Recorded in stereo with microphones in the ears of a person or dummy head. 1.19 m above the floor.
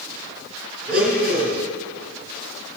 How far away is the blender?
About 2.5 m.